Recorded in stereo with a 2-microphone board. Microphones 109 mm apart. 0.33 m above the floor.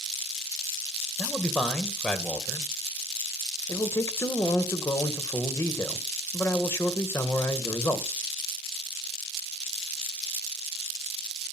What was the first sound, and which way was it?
A man speaking, 5° left (ahead or behind).